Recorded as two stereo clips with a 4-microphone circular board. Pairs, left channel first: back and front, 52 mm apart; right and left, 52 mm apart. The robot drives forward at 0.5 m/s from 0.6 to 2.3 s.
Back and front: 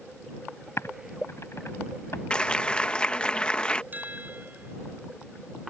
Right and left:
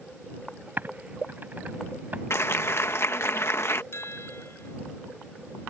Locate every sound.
0.8 s typing on a keyboard: 145° left
2.3 s a clap: 110° right
3.9 s a chime: 55° right